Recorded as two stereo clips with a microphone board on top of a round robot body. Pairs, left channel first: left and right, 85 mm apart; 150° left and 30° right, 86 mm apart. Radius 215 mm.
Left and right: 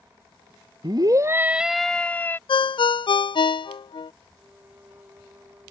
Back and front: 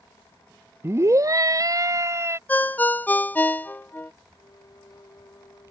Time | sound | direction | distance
0.8 | a scream | 80° right | ?
2.5 | a ringtone | 85° left | ?
4.3 | a violin | 160° right | ?